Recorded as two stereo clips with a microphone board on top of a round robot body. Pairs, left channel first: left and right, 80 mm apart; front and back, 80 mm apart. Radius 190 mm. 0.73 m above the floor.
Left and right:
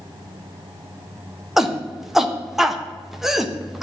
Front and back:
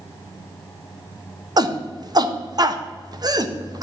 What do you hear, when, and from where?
1.6 s a shout: 175° right, 1.4 m